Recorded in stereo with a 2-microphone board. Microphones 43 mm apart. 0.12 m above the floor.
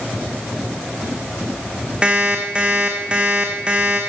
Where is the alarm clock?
25° right (ahead or behind), 4 m.